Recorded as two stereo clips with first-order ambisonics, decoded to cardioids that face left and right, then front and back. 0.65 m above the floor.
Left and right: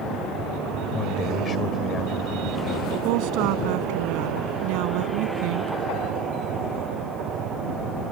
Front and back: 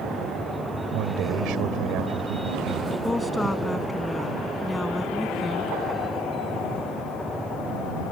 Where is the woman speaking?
80° right.